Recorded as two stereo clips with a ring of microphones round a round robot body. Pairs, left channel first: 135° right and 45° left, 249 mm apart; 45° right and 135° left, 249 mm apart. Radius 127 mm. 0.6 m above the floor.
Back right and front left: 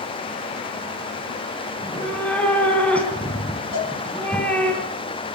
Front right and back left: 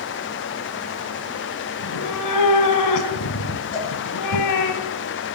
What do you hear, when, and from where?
1.8 s a cat meowing: 50° right, 3 m
3.7 s a cowbell: 105° right, 9.5 m